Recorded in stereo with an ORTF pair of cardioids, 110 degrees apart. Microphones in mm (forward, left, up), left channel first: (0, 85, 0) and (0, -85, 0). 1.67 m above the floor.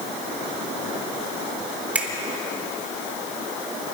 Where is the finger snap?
10° right, 4 m.